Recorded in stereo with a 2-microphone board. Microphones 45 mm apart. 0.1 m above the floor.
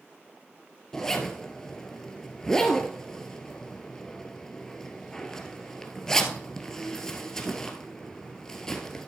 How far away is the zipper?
About 1.3 m.